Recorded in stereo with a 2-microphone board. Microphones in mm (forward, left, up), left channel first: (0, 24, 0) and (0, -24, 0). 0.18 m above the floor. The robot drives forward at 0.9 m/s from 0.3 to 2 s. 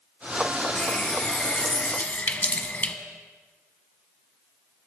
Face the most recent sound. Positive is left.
turn(degrees=30)  # may be behind; listen again after turning